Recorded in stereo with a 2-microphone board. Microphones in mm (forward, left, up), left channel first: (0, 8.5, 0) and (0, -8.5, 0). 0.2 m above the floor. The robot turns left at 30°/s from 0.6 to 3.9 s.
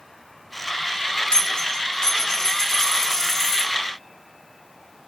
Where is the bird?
I don't hear a bird.